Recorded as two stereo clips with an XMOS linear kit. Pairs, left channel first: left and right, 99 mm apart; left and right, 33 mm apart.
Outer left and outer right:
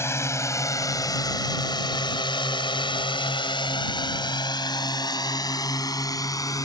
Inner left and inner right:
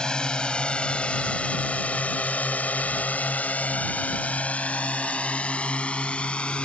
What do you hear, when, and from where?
0.0 s a drone: 25° left (ahead or behind); by 6.7 s 35° left (ahead or behind)